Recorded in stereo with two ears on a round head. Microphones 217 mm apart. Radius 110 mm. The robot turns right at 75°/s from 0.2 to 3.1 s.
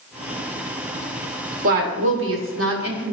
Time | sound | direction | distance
1.6 | a woman speaking | 140° right | 1.3 m